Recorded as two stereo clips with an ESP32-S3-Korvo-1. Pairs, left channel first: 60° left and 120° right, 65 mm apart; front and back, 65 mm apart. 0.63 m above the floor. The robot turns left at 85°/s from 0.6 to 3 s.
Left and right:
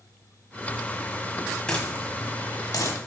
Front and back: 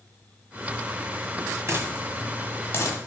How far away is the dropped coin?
About 1.3 m.